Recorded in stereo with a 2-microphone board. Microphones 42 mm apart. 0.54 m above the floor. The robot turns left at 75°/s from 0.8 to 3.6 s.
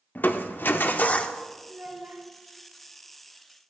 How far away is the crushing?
About 0.6 m.